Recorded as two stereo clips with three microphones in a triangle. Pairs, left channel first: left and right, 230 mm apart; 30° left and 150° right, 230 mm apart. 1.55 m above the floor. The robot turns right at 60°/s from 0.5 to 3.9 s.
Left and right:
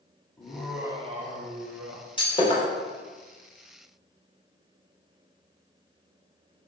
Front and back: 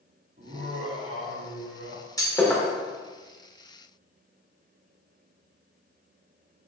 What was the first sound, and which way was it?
Laughter, 170° left.